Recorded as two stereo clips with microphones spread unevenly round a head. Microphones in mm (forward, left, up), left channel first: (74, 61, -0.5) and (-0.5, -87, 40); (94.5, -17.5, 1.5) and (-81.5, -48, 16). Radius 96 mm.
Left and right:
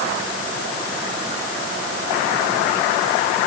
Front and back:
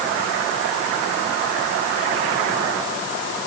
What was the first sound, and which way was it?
Only background noise.